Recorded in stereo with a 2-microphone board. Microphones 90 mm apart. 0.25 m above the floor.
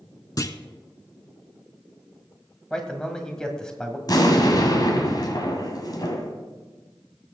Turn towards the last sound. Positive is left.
turn(degrees=45)  # may be behind; listen again after turning